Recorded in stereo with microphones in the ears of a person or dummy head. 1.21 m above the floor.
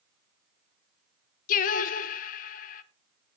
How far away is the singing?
About 0.7 m.